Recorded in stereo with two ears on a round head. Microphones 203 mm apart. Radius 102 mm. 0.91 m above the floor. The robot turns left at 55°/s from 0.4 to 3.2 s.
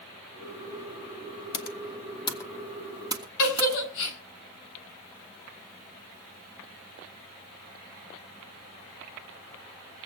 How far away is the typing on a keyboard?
About 1.1 m.